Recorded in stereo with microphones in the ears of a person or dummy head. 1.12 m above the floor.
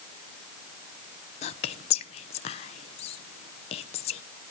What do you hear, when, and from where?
1.4 s whispering: 35° left (ahead or behind), 0.8 m